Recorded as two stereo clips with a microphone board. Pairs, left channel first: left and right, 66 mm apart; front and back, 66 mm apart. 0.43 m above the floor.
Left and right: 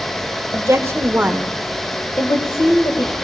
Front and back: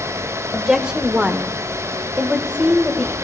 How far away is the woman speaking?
About 1.6 m.